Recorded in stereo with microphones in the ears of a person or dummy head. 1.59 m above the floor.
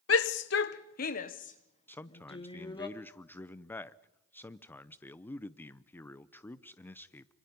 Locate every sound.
0.1 s a shout: 80° left, 1.1 m; by 2.9 s 25° left (ahead or behind), 2 m
1.9 s a man speaking: 10° left (ahead or behind), 0.7 m